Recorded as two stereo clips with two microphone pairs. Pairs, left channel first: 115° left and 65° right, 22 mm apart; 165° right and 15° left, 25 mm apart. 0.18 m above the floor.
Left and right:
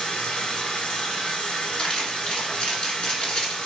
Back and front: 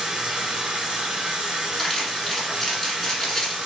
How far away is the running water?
About 1.5 m.